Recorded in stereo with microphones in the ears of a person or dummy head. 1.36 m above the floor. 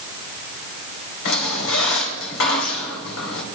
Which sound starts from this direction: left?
A squeak, at 1.2 s.